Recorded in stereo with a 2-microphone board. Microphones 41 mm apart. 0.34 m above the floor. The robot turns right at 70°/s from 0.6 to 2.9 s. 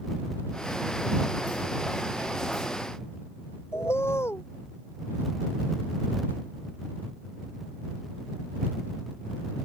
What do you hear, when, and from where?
3.7 s a bird: 85° left